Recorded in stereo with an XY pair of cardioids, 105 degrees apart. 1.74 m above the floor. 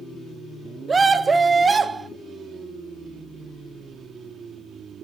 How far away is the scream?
About 1.1 m.